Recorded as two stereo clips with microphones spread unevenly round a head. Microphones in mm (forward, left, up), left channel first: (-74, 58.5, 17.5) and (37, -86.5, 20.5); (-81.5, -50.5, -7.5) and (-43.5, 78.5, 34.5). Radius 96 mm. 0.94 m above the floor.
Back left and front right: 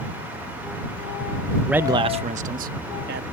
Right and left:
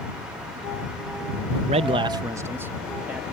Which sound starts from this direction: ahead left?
A man speaking, at 1.7 s.